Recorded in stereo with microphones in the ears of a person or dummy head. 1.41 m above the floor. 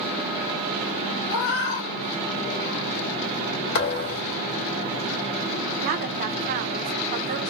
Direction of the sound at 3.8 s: 55° left (ahead or behind).